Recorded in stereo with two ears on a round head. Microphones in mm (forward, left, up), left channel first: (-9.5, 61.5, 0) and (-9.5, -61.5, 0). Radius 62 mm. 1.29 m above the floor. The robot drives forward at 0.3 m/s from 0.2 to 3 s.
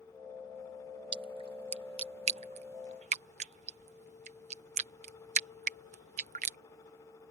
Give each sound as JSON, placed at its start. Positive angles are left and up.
{"t": 1.1, "sound": "a splash", "side_deg": -35}